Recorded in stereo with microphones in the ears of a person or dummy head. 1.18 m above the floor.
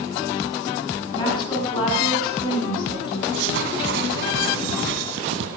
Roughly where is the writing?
Right.